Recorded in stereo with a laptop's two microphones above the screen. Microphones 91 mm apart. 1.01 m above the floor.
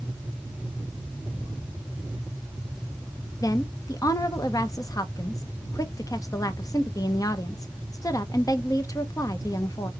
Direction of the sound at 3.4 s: 40° left (ahead or behind).